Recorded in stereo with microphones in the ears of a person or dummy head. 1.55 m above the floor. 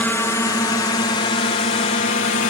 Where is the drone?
10° left (ahead or behind); by 2.5 s 40° left (ahead or behind).